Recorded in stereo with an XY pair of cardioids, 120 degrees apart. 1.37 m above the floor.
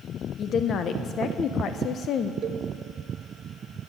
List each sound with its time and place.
0.4 s a woman speaking: 50° left, 0.6 m
2.4 s a cowbell: 45° right, 0.7 m